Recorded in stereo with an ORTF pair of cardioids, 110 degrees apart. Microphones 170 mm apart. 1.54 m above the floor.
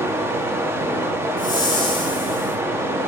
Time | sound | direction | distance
0.0 | running water | 15° right | 1.1 m
1.4 | a whoosh | 25° left | 5 m